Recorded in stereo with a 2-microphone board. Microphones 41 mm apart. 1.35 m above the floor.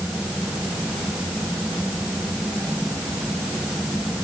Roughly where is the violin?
I don't hear a violin.